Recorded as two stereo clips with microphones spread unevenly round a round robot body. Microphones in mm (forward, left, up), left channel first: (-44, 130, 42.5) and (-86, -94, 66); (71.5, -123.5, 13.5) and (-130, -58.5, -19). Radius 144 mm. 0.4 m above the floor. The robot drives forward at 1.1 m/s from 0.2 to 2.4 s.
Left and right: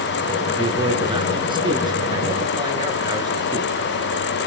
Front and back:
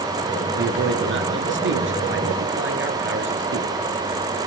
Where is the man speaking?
170° right, 4.5 m; by 3.7 s 175° right, 6.5 m.